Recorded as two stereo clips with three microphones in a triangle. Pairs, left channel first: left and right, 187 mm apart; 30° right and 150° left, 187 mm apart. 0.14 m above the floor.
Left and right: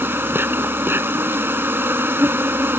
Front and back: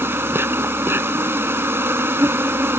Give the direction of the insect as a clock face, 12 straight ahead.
5 o'clock.